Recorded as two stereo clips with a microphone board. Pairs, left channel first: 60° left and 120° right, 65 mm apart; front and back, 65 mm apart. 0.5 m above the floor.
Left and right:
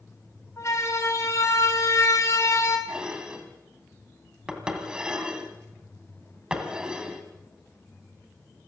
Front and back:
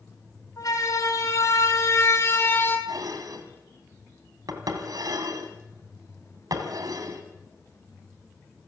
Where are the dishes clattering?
165° left, 3 m.